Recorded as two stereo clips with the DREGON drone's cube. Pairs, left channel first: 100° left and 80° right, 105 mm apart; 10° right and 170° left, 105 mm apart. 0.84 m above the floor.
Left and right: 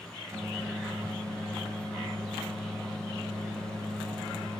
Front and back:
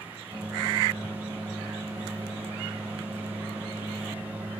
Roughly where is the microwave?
Behind right.